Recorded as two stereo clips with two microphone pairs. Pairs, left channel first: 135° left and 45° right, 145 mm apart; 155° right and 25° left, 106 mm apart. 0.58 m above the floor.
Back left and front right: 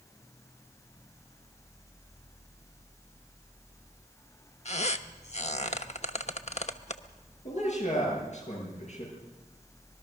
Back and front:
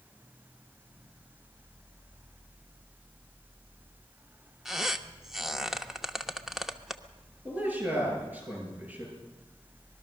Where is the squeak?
115° left, 1.0 m.